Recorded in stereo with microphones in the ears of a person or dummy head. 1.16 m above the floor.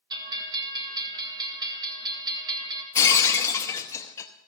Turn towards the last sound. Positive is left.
turn(degrees=15)  # may be behind; listen again after turning